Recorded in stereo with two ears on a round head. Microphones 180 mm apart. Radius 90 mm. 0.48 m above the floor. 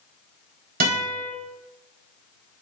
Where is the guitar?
45° right (ahead or behind), 1.0 m.